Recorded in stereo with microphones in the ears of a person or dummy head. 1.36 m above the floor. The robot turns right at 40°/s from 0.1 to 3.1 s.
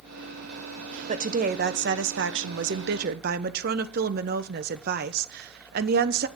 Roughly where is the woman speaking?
Behind right.